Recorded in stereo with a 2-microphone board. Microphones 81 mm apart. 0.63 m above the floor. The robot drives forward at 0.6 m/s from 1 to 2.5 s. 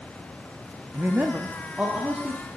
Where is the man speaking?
25° right (ahead or behind), 0.6 m; by 2.5 s 15° right (ahead or behind), 1.1 m.